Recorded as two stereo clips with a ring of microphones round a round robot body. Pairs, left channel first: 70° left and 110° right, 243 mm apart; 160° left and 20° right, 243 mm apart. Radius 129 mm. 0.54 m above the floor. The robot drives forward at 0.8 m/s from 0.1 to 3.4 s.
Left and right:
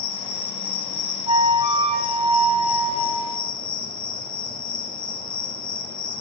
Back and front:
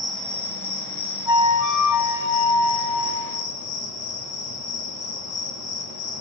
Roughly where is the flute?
Behind.